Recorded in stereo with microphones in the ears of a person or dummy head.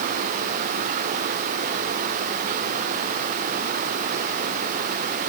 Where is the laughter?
No laughter in this recording.